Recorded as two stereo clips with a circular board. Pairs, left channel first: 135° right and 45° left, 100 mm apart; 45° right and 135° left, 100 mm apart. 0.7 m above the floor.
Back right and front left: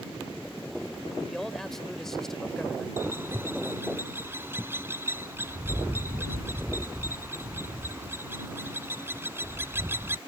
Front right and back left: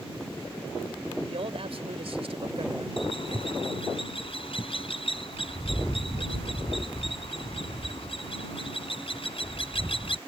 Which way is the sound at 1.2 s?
140° left.